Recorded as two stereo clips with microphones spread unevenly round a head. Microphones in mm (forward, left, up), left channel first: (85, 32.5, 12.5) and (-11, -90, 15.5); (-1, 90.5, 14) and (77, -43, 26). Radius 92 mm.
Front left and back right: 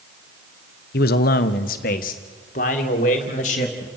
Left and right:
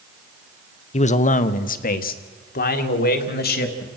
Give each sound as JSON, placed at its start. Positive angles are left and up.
{"t": 0.9, "sound": "a man speaking", "azimuth_deg": 80, "distance_m": 1.0}